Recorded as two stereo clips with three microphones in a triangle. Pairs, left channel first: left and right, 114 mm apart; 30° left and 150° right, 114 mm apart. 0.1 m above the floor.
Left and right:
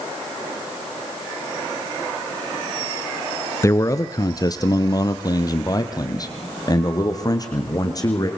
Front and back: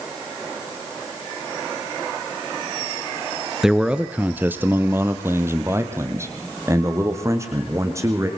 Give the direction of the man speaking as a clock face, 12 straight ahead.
8 o'clock.